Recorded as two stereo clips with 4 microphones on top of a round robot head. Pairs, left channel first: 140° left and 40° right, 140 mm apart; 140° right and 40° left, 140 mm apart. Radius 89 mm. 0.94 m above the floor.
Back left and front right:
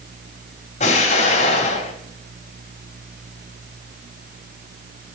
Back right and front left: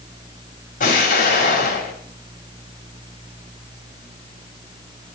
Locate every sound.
0.8 s an explosion: 175° right, 3 m